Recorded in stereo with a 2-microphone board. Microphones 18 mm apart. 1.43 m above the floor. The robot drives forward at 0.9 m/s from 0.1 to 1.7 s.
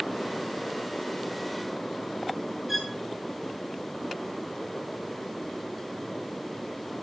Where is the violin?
15° right (ahead or behind), 5 m.